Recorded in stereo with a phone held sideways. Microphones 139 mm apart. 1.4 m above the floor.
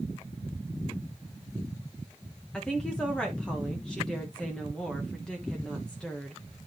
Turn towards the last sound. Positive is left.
turn(degrees=5)  # may be behind; listen again after turning